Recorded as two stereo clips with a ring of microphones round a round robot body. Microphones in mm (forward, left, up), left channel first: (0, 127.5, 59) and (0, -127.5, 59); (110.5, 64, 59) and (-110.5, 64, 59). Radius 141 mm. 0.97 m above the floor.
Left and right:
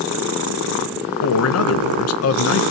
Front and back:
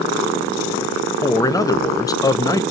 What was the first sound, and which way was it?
A man speaking, 75° left.